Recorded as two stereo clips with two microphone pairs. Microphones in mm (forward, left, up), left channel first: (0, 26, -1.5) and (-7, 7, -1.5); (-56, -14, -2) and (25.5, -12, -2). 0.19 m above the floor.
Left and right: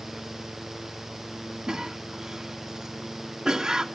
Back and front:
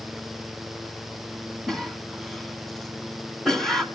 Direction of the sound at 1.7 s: 100° right.